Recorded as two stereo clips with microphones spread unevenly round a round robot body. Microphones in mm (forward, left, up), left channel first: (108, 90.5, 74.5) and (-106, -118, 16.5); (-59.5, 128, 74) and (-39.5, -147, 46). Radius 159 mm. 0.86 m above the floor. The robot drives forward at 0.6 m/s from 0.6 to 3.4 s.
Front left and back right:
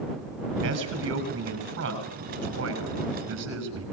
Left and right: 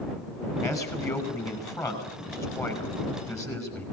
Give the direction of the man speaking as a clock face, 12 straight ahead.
6 o'clock.